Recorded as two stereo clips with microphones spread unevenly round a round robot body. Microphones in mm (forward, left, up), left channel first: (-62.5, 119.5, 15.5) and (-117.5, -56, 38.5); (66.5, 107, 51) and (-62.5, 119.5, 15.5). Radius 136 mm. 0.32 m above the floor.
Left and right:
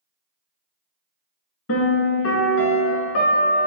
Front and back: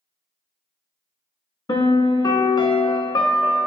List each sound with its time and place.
1.7 s a piano: 55° left, 0.6 m